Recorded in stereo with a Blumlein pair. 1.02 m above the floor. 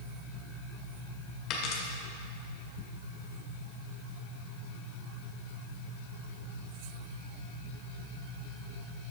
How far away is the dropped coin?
About 1.6 m.